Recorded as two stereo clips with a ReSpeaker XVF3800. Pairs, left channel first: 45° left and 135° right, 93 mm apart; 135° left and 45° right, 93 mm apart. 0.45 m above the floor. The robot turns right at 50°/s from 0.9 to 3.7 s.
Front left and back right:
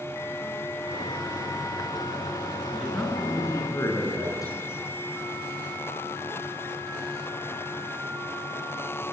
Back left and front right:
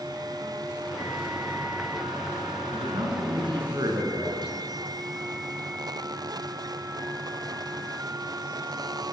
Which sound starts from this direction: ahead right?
A man speaking, at 2.7 s.